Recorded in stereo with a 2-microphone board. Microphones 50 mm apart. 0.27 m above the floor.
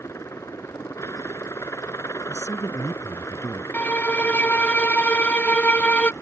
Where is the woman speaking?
65° left (ahead or behind).